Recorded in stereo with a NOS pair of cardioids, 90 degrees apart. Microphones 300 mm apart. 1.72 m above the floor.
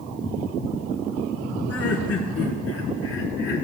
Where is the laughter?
55° left, 4 m; by 3.6 s 40° left, 4 m.